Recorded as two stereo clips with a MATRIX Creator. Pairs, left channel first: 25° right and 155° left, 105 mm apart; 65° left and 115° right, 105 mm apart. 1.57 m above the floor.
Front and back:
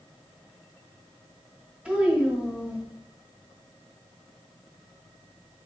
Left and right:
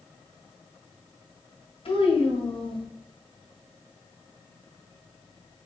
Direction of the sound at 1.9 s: 80° left.